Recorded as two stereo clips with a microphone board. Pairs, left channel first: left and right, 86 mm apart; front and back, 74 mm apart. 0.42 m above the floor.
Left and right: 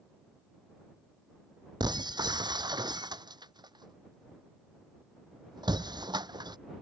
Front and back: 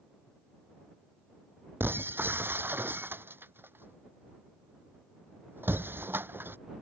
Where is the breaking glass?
120° right.